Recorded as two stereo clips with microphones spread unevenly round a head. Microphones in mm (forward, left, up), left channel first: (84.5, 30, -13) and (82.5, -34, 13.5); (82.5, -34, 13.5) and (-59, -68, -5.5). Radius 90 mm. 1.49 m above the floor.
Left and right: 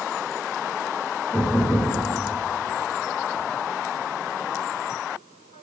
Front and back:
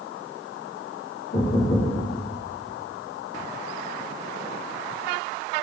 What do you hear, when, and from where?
1.3 s knocking: 10° left, 1.7 m